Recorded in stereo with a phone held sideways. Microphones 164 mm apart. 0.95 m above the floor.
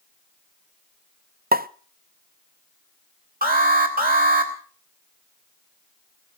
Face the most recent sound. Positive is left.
turn(degrees=-75)  # may be behind; listen again after turning